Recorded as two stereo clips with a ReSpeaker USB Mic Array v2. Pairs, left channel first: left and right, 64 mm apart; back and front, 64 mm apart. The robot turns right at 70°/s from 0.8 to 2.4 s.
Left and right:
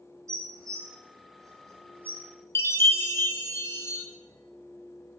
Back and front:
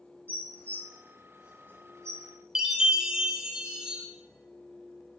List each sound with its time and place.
0.3 s dishes clattering: 120° right, 2.0 m; by 2.8 s 10° right, 2.0 m
2.5 s a chime: 70° left, 0.9 m